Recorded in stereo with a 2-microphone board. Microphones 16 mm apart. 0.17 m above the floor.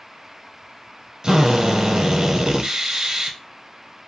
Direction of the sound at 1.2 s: 40° right (ahead or behind).